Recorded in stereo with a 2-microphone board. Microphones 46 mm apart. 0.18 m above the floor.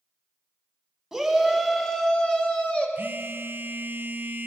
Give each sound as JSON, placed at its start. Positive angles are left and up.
{"t": 1.1, "sound": "a shout", "side_deg": -5, "distance_m": 1.0}
{"t": 3.0, "sound": "a phone buzzing", "side_deg": -50, "distance_m": 0.6}